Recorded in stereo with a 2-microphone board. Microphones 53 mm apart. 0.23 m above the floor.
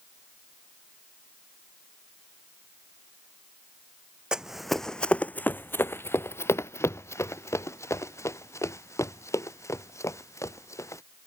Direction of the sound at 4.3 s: 15° right (ahead or behind).